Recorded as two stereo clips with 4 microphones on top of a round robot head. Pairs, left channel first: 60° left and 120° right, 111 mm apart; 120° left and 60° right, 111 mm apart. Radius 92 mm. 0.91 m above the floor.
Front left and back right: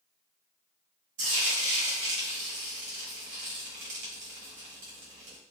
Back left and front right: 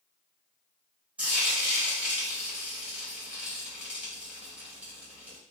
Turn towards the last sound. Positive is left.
turn(degrees=-135)